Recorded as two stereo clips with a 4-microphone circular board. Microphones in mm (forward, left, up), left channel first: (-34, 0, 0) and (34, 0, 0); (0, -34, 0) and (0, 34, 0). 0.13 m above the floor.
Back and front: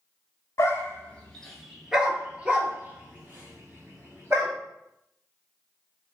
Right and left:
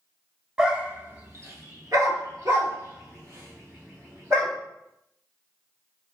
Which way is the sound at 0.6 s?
165° left.